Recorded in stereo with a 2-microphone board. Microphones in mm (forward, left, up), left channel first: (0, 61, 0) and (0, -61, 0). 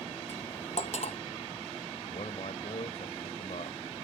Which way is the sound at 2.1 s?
60° left (ahead or behind).